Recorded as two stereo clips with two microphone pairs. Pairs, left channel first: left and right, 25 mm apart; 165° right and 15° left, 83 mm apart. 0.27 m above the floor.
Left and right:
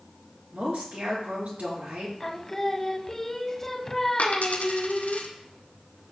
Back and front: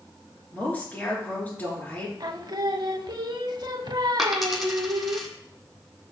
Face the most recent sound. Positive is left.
turn(degrees=100)